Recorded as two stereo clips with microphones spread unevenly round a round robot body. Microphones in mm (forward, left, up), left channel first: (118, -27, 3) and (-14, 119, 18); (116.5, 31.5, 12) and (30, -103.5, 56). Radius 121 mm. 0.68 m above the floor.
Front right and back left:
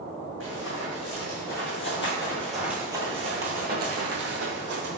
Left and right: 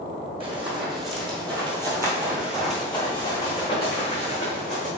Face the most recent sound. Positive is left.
turn(degrees=125)